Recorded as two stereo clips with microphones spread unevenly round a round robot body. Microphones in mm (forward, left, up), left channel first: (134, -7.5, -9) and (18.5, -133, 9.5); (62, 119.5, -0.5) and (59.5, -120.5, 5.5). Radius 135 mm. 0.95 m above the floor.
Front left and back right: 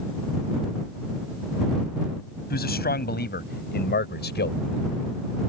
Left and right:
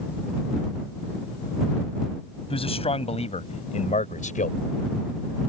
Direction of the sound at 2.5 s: 20° left.